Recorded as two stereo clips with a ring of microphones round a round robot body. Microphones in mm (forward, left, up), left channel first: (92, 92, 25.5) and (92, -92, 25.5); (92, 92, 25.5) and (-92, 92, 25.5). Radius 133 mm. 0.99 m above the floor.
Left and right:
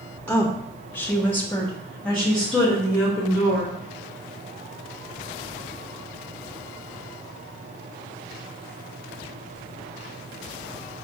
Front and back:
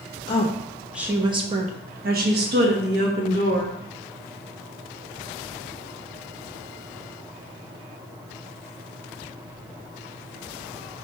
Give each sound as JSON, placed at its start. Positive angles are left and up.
{"t": 0.3, "sound": "a woman speaking", "azimuth_deg": 15, "distance_m": 0.7}